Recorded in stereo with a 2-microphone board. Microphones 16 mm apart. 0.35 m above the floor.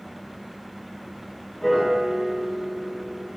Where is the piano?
5° left (ahead or behind), 1.9 m.